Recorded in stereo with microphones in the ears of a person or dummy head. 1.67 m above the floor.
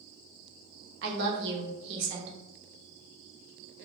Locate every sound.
1.0 s a woman speaking: 65° right (ahead or behind), 0.8 m